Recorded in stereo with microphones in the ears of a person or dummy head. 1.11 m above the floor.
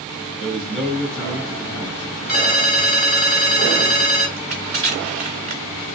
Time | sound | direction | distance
0.4 | a man speaking | 5° left (ahead or behind) | 2.5 m
2.3 | a ringtone | 5° right (ahead or behind) | 3.5 m
4.4 | crushing | 35° right (ahead or behind) | 1.4 m